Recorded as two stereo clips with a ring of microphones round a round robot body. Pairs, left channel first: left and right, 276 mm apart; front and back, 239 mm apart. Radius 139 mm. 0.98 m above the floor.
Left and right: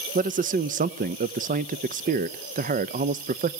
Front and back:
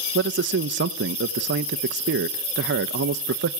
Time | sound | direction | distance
0.1 | a man speaking | 145° right | 0.6 m